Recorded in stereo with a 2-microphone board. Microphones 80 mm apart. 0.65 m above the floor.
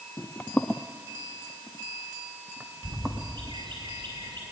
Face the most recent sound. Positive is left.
turn(degrees=-75)  # may be behind; listen again after turning